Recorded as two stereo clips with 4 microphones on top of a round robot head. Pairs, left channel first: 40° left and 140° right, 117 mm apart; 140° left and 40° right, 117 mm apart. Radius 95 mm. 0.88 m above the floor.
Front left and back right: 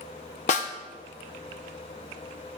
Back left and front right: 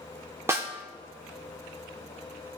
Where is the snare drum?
30° left, 1.0 m.